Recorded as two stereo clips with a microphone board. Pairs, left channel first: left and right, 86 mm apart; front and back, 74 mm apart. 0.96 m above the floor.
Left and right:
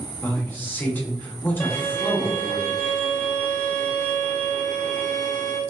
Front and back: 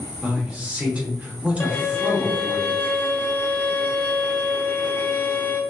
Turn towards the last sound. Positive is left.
turn(degrees=45)